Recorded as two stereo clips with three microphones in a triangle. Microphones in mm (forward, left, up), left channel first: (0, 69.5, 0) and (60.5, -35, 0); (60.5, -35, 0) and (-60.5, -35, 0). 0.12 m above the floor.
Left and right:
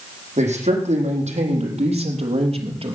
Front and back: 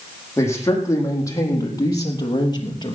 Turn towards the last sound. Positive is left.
turn(degrees=-40)